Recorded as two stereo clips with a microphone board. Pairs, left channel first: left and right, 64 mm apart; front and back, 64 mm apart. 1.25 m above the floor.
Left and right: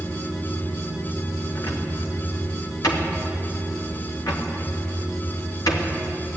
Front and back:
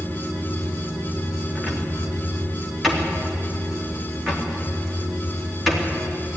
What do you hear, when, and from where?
1.6 s a cupboard door: 90° left, 3 m